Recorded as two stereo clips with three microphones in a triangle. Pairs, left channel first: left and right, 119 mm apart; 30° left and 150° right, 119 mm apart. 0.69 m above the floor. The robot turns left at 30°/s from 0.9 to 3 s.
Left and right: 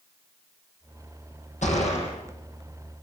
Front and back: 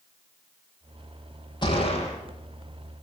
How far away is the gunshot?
About 8 m.